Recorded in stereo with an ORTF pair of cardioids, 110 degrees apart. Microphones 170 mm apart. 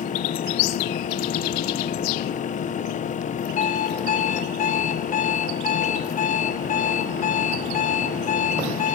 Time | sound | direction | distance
0.0 | a fan | 50° left | 1.5 m
3.6 | an alarm clock | 55° left | 3 m